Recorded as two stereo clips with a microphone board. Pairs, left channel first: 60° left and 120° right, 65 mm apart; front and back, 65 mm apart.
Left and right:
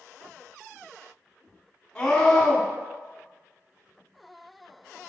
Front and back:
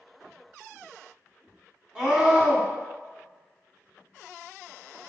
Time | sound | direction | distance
1.9 | a scream | 125° left | 1.3 m